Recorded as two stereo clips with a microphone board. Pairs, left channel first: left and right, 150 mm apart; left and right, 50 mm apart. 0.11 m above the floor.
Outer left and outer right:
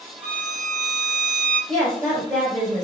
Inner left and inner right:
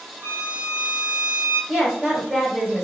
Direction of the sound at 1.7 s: 25° right (ahead or behind).